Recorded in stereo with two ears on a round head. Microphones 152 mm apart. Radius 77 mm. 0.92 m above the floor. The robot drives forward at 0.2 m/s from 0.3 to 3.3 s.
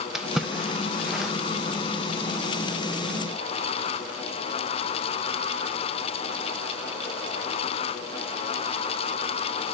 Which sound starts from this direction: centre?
A splash, at 0.1 s.